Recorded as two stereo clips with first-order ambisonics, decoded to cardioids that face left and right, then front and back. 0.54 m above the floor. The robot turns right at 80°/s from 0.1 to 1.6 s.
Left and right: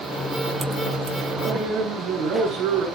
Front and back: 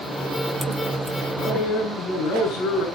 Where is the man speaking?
60° right, 6 m; by 2.9 s 40° right, 6 m.